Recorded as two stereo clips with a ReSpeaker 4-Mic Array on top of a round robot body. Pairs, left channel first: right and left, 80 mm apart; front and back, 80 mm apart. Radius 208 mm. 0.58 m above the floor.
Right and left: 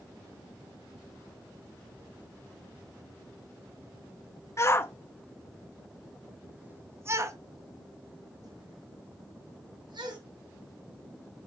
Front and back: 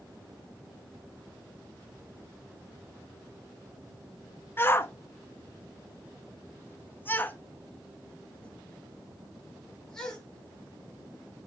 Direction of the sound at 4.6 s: 50° right.